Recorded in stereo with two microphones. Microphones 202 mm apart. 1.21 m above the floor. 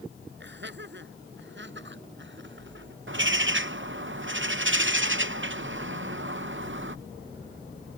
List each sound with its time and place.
0.4 s laughter: 60° right (ahead or behind); by 3.0 s 65° right (ahead or behind)
3.1 s a bird: 65° right (ahead or behind)